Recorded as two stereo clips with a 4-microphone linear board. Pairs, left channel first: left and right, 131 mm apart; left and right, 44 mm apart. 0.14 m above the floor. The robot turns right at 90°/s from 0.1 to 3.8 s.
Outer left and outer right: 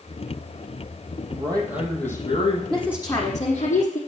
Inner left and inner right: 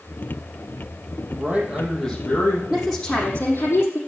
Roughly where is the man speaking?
Ahead right.